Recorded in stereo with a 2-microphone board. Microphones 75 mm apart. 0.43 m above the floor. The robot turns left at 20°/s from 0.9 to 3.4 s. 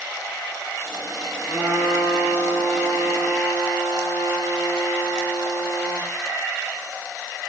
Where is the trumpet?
160° left, 5 m; by 6.1 s 120° left, 5 m.